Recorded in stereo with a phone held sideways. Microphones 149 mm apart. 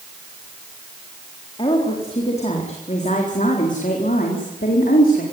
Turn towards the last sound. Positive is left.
turn(degrees=75)  # may be behind; listen again after turning